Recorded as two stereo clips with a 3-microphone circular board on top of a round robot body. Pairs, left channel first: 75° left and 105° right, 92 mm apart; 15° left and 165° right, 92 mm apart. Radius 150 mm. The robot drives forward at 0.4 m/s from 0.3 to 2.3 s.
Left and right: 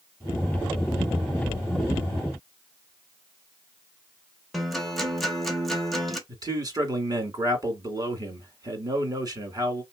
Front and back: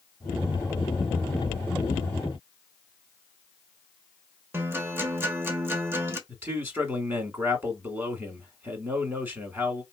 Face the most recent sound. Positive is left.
turn(degrees=-110)